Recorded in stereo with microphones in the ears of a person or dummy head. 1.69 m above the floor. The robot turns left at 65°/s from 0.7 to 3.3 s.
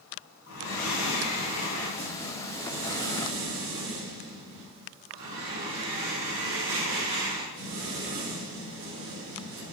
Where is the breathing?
95° left, 3.5 m; by 9.7 s 75° right, 3.5 m.